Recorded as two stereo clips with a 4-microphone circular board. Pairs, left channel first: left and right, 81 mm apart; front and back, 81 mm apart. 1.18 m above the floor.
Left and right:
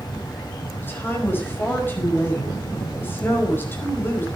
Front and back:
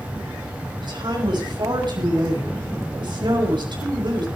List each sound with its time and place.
0.8 s a woman speaking: 155° left, 5 m